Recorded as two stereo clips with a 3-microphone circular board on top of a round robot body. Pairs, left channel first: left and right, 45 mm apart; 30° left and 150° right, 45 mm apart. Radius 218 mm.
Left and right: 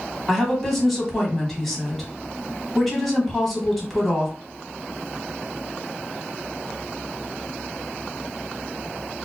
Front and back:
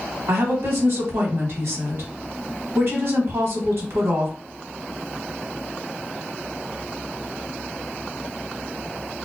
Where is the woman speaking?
Straight behind, 1.3 m.